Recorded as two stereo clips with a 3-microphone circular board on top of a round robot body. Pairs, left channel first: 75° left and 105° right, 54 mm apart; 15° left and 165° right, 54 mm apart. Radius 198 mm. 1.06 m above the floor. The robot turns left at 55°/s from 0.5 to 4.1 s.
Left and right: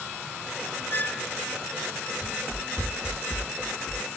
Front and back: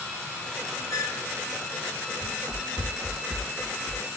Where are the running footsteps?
160° right; by 4.1 s 85° left.